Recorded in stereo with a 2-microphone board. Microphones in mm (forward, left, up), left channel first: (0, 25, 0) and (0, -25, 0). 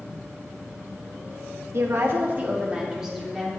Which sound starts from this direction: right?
A woman speaking, at 1.7 s.